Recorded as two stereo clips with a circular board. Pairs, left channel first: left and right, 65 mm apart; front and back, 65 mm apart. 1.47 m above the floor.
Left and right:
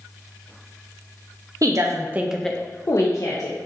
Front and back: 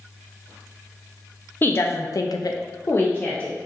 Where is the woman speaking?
55° right, 0.8 m; by 3.5 s 70° left, 1.1 m.